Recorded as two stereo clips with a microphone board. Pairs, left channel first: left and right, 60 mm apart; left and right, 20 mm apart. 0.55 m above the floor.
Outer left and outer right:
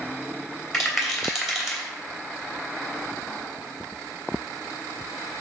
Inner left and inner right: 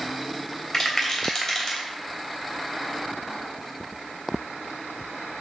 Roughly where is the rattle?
Centre.